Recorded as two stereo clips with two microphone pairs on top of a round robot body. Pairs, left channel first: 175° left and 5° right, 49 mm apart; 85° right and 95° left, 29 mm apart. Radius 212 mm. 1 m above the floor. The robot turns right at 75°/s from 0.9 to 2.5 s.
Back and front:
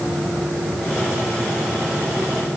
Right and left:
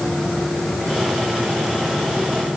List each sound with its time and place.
Only background noise.